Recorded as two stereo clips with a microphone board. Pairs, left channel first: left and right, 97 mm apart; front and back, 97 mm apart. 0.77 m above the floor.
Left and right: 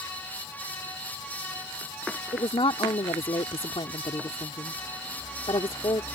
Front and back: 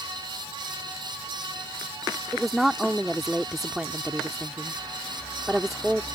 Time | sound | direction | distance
2.3 | a woman speaking | 95° left | ?